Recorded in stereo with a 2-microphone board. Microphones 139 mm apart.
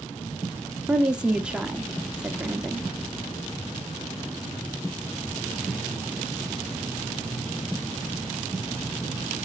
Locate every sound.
0.9 s a woman speaking: 5° right (ahead or behind), 1.0 m